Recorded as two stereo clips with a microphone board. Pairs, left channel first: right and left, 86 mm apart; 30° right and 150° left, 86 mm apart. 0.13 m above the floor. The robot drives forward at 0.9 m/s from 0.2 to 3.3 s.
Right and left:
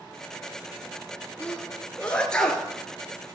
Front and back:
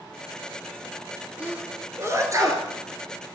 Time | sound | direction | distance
1.4 | a sneeze | 150° right | 1.2 m